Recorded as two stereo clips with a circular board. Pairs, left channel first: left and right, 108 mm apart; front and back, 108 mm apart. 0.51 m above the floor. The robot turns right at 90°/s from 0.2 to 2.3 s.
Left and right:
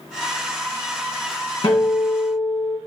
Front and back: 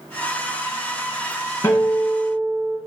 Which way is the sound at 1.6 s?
60° left.